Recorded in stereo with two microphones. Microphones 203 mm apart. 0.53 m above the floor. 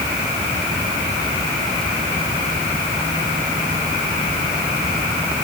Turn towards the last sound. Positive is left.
No sound to turn to.